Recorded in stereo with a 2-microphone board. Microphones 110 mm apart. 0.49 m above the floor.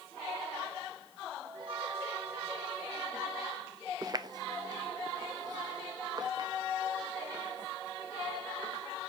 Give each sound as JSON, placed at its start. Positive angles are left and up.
{"t": 1.4, "sound": "a chime", "side_deg": -50, "distance_m": 3.5}
{"t": 4.0, "sound": "footsteps", "side_deg": -35, "distance_m": 0.6}